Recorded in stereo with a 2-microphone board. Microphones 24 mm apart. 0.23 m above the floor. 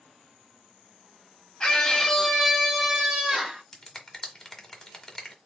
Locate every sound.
1.6 s a scream: 30° left (ahead or behind), 1.4 m; by 3.6 s 30° right (ahead or behind), 1.8 m
3.7 s a finger snap: 15° left (ahead or behind), 1.2 m